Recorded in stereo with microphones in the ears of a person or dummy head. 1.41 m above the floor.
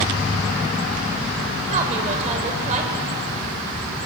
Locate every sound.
1.7 s a woman speaking: 40° right (ahead or behind), 5 m